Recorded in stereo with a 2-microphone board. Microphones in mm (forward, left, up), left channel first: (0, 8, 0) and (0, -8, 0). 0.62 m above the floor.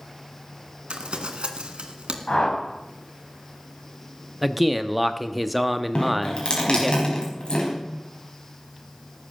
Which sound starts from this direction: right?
Crumpling, at 0.9 s.